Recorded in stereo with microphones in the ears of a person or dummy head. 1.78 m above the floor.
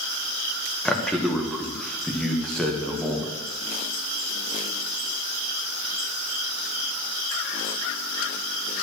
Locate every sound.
0.8 s a man speaking: centre (ahead or behind), 1.5 m